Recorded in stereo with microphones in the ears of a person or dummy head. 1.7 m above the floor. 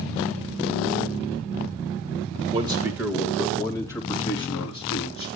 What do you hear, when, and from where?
2.5 s a man speaking: 30° right (ahead or behind), 1.7 m; by 5.3 s 30° left (ahead or behind), 5 m